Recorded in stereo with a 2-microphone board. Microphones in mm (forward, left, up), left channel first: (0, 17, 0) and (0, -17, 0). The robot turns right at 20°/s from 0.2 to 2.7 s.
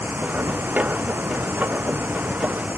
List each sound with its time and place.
0.0 s running water: 105° right; by 2.8 s 55° right